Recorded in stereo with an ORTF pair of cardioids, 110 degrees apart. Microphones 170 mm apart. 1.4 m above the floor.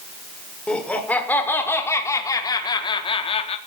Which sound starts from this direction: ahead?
Laughter, at 0.7 s.